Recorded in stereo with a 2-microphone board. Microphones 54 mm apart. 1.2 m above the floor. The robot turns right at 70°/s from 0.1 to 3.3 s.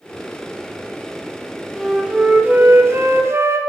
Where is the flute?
175° left, 0.6 m; by 3.6 s 80° right, 0.6 m.